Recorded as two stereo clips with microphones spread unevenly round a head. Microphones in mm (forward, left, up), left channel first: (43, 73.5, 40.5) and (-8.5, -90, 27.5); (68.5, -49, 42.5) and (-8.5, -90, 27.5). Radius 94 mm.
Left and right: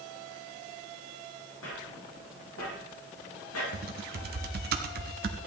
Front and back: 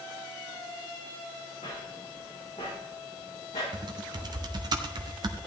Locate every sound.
1.6 s footsteps: 70° left, 4.5 m; by 3.6 s 80° left, 5.5 m
3.7 s typing on a keyboard: 130° right, 0.8 m